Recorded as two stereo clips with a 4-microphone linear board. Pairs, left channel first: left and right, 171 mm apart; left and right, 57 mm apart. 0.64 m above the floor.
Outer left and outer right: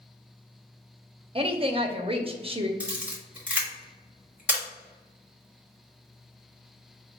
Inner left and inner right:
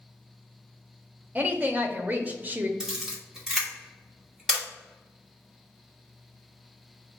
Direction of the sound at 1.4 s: 35° right (ahead or behind).